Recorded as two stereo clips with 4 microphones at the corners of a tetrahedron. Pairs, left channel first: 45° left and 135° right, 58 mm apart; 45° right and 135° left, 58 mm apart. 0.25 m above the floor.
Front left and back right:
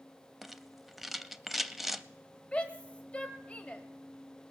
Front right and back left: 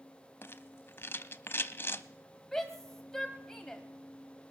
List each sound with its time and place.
0.4 s a rattle: 50° right, 0.5 m
2.5 s a shout: 25° left, 1.4 m